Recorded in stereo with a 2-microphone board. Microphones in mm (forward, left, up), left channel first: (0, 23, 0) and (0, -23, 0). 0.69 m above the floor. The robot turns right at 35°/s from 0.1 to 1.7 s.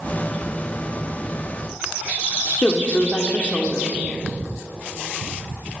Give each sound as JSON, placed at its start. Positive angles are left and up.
{"t": 2.6, "sound": "a woman speaking", "side_deg": 30, "distance_m": 1.7}